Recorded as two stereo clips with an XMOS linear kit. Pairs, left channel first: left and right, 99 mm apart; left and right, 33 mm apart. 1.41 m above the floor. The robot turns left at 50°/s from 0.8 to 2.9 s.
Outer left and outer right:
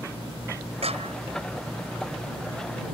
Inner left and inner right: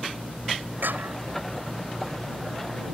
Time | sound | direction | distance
0.8 | a clap | 80° right | ?